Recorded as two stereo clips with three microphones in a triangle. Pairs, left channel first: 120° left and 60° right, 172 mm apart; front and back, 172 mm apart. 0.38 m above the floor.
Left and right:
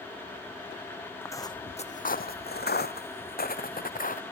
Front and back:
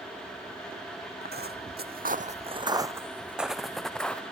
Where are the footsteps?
165° right, 1.1 m; by 4.2 s 85° left, 2 m.